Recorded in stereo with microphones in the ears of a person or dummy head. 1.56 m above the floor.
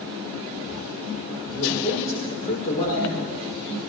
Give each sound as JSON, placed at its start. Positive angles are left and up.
{"t": 1.5, "sound": "a man speaking", "side_deg": 35, "distance_m": 5.5}